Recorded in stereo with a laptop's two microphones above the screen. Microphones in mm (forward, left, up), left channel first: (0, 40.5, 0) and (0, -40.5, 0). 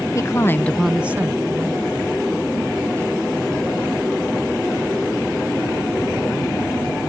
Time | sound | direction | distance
0.1 | a woman speaking | 40° left (ahead or behind) | ?